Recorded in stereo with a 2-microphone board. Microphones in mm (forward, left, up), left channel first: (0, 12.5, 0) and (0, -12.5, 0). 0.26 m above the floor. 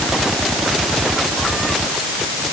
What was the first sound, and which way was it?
Only background noise.